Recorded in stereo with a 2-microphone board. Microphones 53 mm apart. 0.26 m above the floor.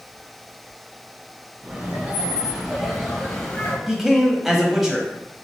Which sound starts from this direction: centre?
A man speaking, at 3.9 s.